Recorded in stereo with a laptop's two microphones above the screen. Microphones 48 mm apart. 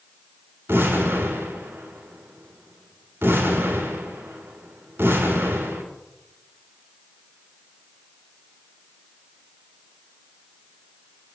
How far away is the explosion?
About 2.5 m.